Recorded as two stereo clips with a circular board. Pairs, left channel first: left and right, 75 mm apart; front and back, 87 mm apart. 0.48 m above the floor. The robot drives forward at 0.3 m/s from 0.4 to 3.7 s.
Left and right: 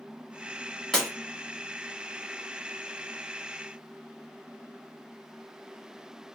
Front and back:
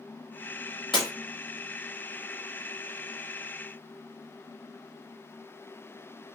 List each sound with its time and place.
0.9 s breaking glass: 5° left, 1.2 m